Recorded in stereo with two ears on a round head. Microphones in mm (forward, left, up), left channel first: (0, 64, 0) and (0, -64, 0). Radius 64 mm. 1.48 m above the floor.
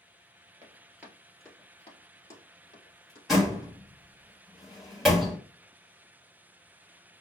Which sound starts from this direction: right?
Running footsteps, at 0.6 s.